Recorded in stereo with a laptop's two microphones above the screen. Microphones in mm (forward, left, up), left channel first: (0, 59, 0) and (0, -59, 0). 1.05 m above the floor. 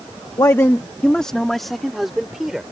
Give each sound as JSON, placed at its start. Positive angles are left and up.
{"t": 0.4, "sound": "a man speaking", "side_deg": 35}